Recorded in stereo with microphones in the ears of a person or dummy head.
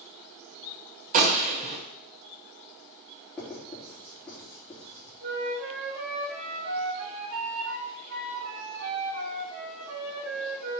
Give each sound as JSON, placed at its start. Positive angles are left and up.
{"t": 1.1, "sound": "a gunshot", "side_deg": -40, "distance_m": 1.7}
{"t": 3.4, "sound": "writing", "side_deg": 10, "distance_m": 4.0}
{"t": 5.2, "sound": "a flute", "side_deg": -50, "distance_m": 1.3}